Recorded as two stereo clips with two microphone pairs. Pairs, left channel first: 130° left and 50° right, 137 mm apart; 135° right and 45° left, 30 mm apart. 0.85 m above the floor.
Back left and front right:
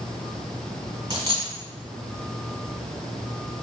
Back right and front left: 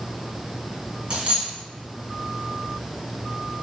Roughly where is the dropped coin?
Ahead.